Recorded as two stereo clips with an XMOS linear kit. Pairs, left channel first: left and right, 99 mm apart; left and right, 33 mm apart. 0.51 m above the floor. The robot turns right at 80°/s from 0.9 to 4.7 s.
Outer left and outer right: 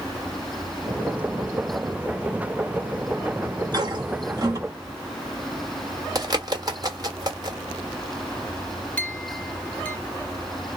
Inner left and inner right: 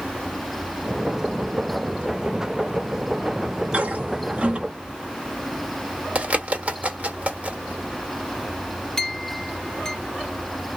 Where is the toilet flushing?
40° right (ahead or behind), 1.4 m; by 4.6 s 35° right (ahead or behind), 1.4 m.